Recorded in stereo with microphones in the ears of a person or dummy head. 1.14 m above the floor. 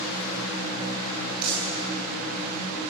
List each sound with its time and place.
1.4 s crumpling: 50° right (ahead or behind), 9.5 m